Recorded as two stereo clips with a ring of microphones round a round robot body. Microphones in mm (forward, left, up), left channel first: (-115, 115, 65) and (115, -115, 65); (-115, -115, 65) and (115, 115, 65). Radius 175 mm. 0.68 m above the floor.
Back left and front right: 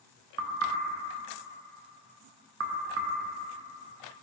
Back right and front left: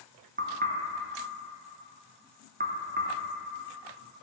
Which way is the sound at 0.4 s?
10° right.